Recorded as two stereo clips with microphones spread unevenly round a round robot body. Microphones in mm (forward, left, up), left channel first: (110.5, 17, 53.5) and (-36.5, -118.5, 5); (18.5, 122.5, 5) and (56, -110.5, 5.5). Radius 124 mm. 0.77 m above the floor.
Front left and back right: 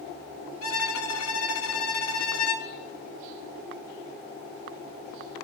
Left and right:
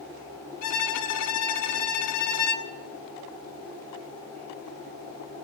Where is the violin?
80° left, 1.1 m.